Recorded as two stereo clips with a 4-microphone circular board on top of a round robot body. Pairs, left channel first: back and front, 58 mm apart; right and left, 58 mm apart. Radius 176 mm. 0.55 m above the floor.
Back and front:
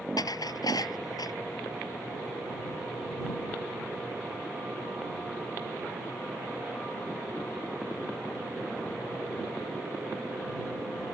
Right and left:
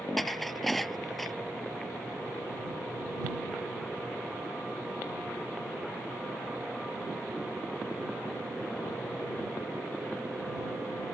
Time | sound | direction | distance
0.2 | dishes clattering | straight behind | ?